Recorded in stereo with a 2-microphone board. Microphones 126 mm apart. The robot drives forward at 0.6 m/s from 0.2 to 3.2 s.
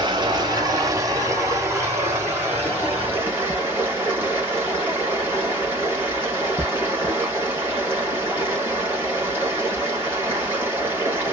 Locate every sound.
0.0 s running water: 40° right (ahead or behind), 1.3 m; by 11.3 s 15° right (ahead or behind), 3 m